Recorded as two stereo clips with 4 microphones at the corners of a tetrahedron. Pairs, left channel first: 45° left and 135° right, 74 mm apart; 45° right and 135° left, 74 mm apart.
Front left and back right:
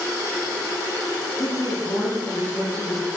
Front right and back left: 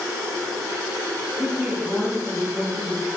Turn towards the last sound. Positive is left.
turn(degrees=60)